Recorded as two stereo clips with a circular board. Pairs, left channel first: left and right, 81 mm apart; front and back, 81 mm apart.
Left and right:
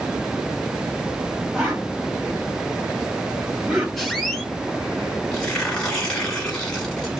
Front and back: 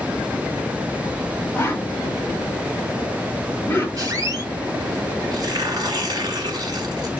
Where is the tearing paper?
165° left, 1.4 m.